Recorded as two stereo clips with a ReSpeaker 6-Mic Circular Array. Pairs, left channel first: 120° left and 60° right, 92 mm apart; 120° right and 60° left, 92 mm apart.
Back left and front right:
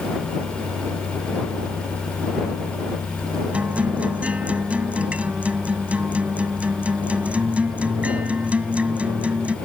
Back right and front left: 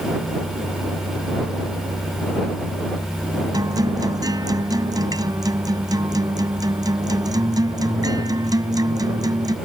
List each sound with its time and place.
3.5 s a guitar: 15° left